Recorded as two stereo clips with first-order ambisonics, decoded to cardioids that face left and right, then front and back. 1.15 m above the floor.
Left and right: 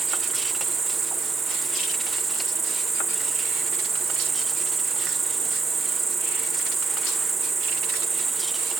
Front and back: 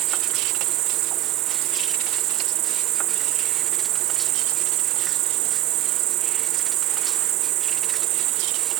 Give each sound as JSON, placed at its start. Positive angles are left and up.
{"t": 0.0, "sound": "an insect", "azimuth_deg": -160}